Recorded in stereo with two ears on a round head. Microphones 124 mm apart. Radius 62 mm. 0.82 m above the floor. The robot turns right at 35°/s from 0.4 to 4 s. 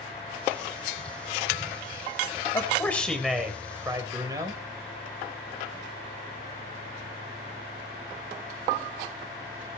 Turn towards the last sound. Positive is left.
turn(degrees=-155)